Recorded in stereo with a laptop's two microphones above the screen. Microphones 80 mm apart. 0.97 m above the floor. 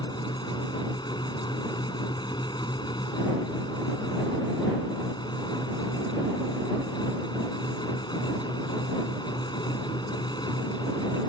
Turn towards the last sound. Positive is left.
turn(degrees=60)  # may be behind; listen again after turning